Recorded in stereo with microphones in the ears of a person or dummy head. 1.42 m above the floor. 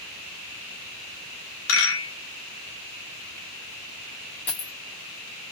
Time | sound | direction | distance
1.7 | a rattle | 75° left (ahead or behind) | 2.0 m
4.5 | a dropped coin | 10° left (ahead or behind) | 1.3 m